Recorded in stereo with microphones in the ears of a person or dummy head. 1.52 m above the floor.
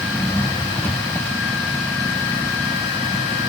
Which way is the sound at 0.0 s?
5° left (ahead or behind).